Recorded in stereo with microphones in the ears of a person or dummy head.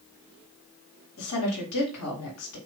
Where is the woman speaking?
80° left, 2.5 m.